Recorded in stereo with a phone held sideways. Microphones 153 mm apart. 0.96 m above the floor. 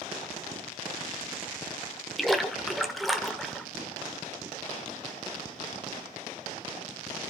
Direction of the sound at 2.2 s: Centre (ahead or behind).